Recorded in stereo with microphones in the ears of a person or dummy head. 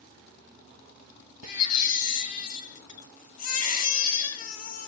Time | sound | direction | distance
1.4 | a baby crying | 50° left (ahead or behind) | 1.5 m